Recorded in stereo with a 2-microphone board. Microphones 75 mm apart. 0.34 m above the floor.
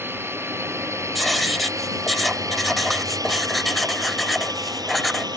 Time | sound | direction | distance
0.0 | a drone | 30° right (ahead or behind) | ?
1.1 | writing | centre (ahead or behind) | ?